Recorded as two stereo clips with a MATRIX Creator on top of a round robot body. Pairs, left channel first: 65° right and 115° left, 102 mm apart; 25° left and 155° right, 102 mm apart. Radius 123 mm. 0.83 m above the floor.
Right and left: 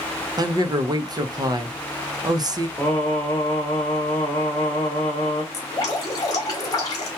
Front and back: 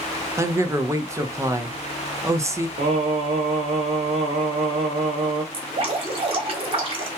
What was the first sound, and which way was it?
A man speaking, 150° left.